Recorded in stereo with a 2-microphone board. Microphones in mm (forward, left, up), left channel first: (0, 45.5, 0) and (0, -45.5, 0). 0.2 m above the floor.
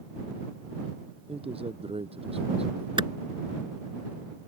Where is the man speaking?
80° right.